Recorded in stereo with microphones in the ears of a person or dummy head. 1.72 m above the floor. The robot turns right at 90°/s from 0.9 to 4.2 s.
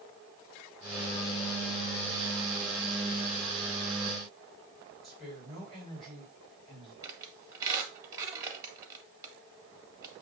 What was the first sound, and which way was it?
A woman speaking, 5° left (ahead or behind).